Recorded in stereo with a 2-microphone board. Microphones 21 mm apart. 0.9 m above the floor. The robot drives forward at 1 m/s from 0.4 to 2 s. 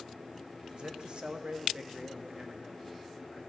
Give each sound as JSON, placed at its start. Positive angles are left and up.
{"t": 0.7, "sound": "a man speaking", "side_deg": -45, "distance_m": 1.0}